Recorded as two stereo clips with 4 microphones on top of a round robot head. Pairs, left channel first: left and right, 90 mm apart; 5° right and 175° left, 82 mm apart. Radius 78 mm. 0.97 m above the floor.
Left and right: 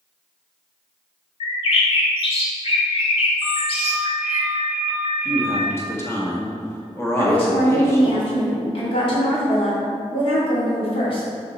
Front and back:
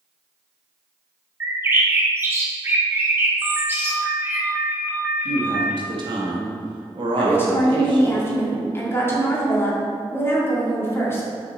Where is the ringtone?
110° left, 1.4 m.